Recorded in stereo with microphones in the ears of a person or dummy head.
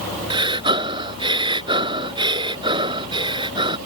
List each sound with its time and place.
0.3 s breathing: 25° right (ahead or behind)